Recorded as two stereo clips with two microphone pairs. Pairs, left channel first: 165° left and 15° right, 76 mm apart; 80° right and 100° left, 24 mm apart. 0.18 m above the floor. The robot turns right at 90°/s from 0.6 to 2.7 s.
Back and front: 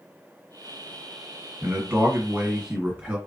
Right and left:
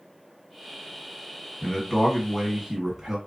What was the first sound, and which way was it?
A man speaking, 70° right.